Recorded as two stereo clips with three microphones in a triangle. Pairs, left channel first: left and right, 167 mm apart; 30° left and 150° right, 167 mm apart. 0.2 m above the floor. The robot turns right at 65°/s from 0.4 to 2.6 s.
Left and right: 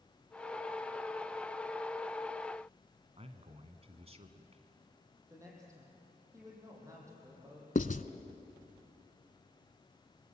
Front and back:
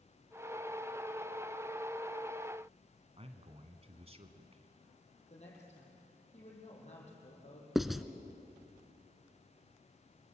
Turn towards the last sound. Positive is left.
turn(degrees=120)